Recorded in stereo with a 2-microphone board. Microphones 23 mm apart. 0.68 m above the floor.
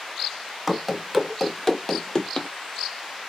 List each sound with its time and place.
0.7 s running footsteps: 10° right (ahead or behind), 0.9 m; by 2.5 s 35° left (ahead or behind), 0.8 m